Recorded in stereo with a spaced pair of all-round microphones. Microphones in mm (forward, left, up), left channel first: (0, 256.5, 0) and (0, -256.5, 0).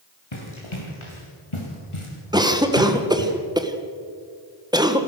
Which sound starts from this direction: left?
Running footsteps, at 0.3 s.